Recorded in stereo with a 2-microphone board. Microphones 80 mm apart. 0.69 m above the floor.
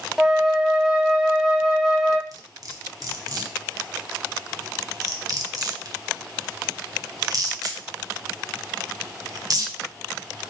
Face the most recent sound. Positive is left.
turn(degrees=-50)  # may be behind; listen again after turning